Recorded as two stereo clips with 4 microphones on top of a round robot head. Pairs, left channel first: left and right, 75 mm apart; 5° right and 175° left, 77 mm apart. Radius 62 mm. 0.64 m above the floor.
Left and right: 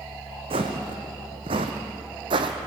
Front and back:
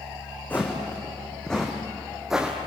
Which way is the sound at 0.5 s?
80° right.